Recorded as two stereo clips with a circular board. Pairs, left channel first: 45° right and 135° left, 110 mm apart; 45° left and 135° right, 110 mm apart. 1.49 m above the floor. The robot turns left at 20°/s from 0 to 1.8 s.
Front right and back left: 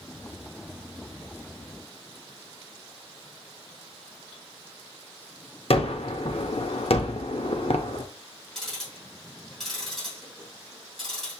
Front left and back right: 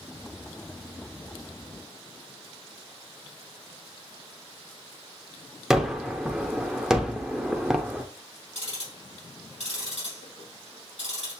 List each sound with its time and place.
5.7 s a gunshot: 50° right, 0.6 m
8.6 s ticking: 40° left, 3 m